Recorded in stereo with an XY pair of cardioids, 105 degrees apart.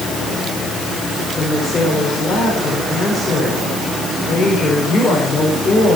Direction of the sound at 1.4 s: 35° left.